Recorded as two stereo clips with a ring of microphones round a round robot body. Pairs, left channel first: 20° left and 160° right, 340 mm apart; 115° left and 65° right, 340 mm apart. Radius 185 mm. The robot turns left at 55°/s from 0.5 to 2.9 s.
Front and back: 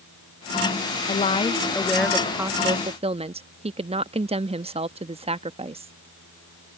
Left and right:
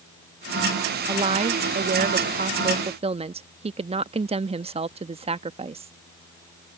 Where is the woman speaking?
15° right; by 5.9 s 115° right.